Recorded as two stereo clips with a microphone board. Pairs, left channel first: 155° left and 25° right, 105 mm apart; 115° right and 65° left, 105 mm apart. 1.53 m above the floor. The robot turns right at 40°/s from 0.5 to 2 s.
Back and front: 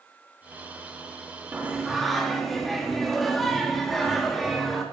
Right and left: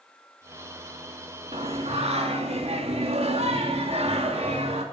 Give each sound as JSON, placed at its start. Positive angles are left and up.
{"t": 1.5, "sound": "singing", "azimuth_deg": 50, "distance_m": 2.5}